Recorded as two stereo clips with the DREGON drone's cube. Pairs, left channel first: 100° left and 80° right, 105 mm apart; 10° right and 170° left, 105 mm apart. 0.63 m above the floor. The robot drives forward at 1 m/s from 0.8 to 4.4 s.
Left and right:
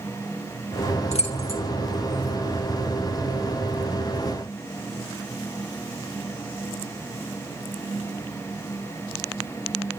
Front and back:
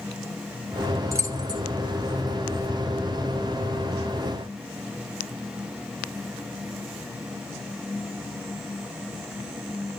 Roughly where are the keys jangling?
Left.